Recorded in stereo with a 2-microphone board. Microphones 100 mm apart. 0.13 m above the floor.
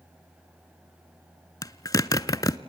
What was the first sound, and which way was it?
A zipper, 40° left (ahead or behind).